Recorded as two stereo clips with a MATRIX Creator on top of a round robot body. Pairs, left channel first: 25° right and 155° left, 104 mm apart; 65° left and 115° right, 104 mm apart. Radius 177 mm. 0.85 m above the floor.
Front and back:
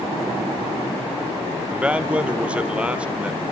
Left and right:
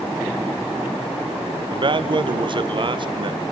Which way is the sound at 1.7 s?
125° right.